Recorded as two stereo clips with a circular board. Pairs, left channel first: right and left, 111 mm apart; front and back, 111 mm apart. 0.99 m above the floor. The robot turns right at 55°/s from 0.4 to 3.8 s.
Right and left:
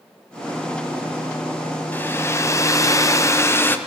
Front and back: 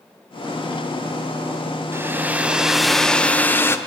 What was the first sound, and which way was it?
A hair dryer, 140° right.